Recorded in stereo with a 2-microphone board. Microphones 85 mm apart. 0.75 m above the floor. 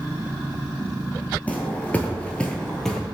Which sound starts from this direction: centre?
Footsteps, at 1.5 s.